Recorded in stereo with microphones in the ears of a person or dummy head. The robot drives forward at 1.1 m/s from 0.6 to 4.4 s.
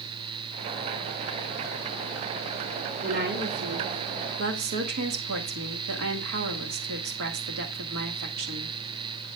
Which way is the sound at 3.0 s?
45° right (ahead or behind).